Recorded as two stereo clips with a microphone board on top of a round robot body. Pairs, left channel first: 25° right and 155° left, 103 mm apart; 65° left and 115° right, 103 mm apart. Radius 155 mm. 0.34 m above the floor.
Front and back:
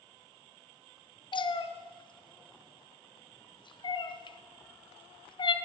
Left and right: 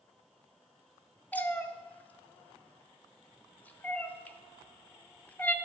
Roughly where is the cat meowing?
Ahead.